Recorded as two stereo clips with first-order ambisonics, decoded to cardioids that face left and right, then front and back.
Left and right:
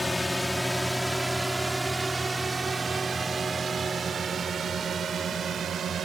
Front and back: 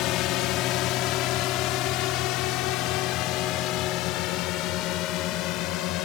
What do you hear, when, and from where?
0.0 s a drone: 5° left; by 6.0 s 35° right